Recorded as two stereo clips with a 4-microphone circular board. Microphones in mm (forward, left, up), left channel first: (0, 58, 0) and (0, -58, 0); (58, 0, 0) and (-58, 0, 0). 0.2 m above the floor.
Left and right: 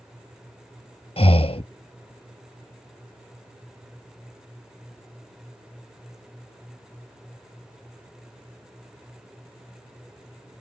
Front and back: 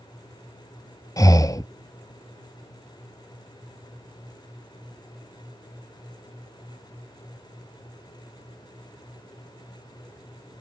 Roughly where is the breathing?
Ahead left.